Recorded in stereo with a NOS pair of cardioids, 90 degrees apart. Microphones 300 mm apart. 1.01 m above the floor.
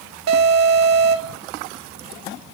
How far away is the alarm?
About 2 m.